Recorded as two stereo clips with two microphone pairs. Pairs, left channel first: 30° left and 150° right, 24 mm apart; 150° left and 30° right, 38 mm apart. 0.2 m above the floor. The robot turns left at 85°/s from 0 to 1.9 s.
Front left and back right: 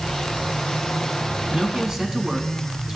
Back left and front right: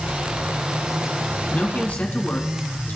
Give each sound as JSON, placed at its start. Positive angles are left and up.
{"t": 1.5, "sound": "a man speaking", "azimuth_deg": -170, "distance_m": 1.7}